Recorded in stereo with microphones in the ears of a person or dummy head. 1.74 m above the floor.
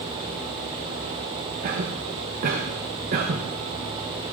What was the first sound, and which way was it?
A cough, 45° right (ahead or behind).